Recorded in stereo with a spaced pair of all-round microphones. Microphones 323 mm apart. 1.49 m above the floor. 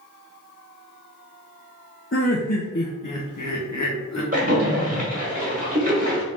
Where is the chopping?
No chopping in this recording.